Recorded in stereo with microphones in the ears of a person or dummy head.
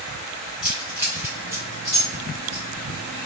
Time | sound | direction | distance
0.6 | keys jangling | 5° right (ahead or behind) | 1.8 m